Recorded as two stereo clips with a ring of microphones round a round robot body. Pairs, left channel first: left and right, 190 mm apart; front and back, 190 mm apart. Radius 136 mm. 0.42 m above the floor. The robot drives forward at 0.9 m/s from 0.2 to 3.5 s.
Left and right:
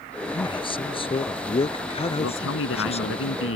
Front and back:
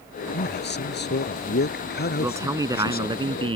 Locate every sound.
0.3 s a man speaking: 25° left; by 3.2 s 35° left
2.2 s a man speaking: 100° left; by 3.6 s 115° left